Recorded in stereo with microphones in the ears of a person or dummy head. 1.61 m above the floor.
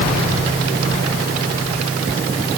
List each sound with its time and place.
Only background noise.